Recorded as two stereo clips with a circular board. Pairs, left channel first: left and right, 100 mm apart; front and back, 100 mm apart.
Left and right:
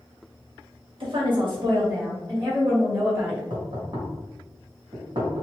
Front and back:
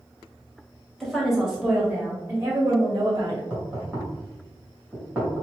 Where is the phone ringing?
I don't hear a phone ringing.